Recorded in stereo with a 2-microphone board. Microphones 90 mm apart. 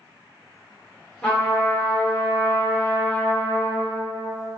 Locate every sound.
1.2 s a trumpet: 10° left (ahead or behind), 1.6 m